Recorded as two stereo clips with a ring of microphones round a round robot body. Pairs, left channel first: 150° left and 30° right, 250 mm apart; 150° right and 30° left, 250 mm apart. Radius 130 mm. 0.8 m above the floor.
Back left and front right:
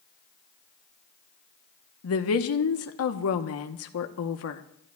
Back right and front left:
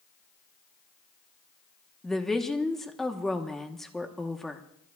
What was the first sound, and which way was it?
A woman speaking, 120° left.